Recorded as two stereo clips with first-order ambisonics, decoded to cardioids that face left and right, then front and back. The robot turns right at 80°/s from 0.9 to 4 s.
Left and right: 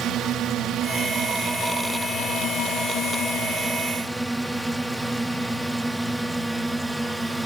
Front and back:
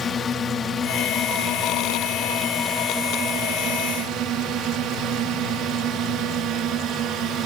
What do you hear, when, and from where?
0.0 s a drone: 60° right; by 7.5 s 175° right